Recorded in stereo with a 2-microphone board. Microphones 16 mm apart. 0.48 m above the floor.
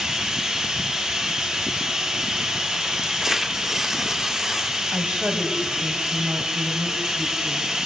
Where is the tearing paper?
20° right (ahead or behind), 0.8 m.